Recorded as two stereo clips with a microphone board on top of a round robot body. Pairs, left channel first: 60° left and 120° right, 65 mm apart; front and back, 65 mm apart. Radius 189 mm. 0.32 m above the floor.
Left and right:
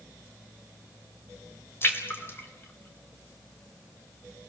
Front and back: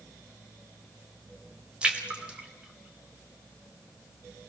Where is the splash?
110° left, 3 m.